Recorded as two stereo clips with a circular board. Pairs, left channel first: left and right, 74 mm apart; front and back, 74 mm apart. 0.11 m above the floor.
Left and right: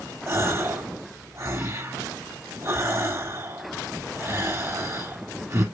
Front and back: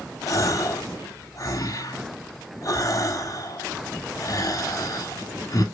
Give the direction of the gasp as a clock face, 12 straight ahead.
1 o'clock.